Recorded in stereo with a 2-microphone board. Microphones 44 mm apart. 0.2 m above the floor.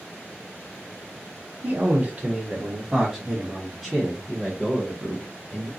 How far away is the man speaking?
About 1.3 m.